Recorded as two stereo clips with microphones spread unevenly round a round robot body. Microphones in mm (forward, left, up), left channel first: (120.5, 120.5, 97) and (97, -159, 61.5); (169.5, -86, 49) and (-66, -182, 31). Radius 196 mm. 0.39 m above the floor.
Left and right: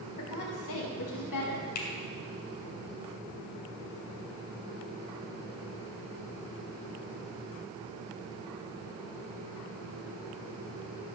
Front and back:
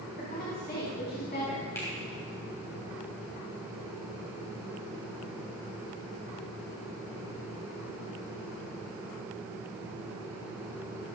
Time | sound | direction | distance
0.2 | a woman speaking | 90° left | 4 m
1.8 | a finger snap | 105° left | 2.5 m